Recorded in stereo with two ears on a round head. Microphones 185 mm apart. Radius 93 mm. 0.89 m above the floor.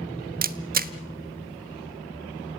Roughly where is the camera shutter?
Right.